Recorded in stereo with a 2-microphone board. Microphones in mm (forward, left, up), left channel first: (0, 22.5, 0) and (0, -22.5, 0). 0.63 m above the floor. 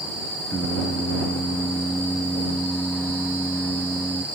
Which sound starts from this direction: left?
Singing, at 0.5 s.